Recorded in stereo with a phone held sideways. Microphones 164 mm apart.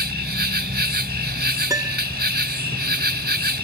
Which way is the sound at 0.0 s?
80° right.